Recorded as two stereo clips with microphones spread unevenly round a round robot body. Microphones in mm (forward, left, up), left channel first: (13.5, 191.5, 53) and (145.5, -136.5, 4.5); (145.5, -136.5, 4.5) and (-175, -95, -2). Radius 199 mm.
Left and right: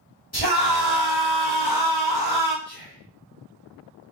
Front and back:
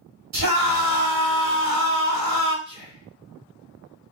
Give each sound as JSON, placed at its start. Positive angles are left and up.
{"t": 0.3, "sound": "a scream", "azimuth_deg": 180, "distance_m": 2.0}
{"t": 2.6, "sound": "whispering", "azimuth_deg": -145, "distance_m": 0.8}